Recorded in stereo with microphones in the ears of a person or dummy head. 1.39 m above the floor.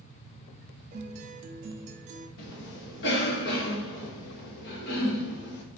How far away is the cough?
About 2 m.